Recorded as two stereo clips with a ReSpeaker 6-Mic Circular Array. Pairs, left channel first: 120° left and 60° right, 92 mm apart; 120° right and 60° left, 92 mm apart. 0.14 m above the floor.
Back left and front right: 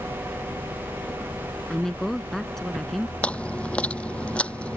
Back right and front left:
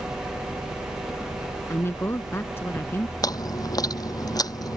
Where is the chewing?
165° right.